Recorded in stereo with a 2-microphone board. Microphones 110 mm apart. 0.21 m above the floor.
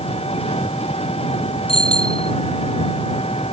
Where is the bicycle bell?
60° left (ahead or behind).